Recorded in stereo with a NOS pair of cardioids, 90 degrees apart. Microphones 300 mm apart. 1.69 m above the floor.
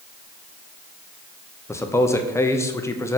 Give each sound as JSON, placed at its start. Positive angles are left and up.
{"t": 1.7, "sound": "a man speaking", "azimuth_deg": 10, "distance_m": 0.9}